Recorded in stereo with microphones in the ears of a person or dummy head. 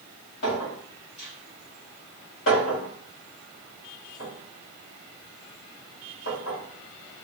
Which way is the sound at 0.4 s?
70° left (ahead or behind).